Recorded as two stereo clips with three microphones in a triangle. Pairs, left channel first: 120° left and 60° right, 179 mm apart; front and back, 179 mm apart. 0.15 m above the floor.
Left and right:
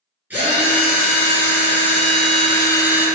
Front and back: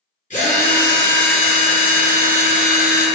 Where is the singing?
I don't hear singing.